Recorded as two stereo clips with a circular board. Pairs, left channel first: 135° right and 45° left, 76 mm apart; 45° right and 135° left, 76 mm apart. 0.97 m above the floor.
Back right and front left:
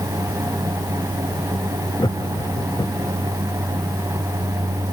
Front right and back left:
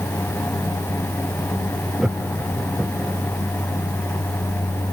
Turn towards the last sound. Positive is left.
turn(degrees=-145)